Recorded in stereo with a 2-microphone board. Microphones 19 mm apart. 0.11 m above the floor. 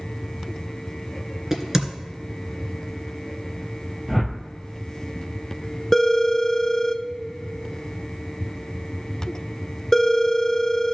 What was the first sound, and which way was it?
A crack, 20° right (ahead or behind).